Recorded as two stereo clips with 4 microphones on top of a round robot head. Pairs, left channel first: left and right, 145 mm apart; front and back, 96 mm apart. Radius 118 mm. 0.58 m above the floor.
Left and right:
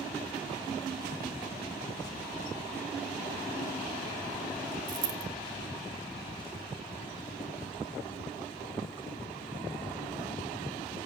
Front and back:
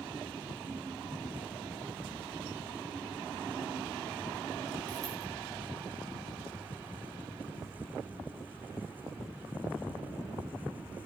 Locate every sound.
4.9 s a dropped coin: 115° right, 1.4 m